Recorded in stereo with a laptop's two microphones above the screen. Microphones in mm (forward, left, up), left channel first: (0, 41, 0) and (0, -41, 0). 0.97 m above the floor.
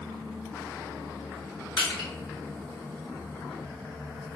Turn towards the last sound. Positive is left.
turn(degrees=65)  # may be behind; listen again after turning